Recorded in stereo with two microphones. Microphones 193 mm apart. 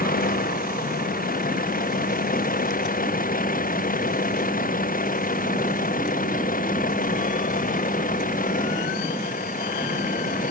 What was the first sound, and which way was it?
A vehicle, 50° left (ahead or behind).